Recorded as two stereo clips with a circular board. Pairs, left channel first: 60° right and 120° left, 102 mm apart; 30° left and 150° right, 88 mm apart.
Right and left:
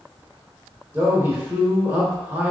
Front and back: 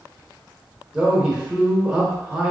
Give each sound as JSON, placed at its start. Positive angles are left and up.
{"t": 0.9, "sound": "a man speaking", "azimuth_deg": 145, "distance_m": 1.0}